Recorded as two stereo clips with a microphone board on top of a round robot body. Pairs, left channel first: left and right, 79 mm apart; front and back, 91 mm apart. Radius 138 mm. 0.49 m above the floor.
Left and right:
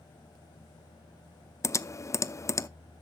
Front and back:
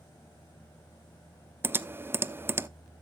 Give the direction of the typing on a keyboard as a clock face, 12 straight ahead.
8 o'clock.